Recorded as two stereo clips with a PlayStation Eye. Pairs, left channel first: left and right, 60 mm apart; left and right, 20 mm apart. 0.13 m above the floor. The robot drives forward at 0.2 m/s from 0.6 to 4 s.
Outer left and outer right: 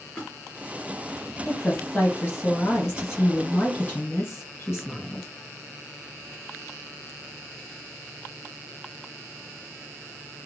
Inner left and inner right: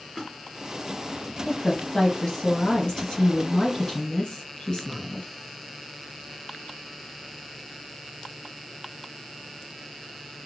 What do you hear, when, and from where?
0.1 s a splash: 15° left (ahead or behind), 1.9 m
1.4 s a woman speaking: 40° left (ahead or behind), 2 m